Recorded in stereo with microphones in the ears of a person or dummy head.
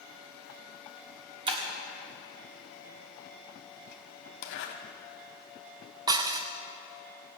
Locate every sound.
1.5 s breaking glass: 25° right (ahead or behind), 1.3 m
4.4 s a zipper: 65° left (ahead or behind), 1.5 m
6.1 s dishes clattering: 15° right (ahead or behind), 0.6 m